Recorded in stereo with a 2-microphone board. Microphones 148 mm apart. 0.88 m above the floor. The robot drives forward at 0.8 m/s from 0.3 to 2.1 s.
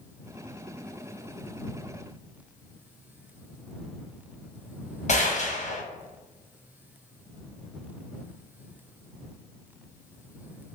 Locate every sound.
5.1 s a gunshot: 50° left (ahead or behind), 1.0 m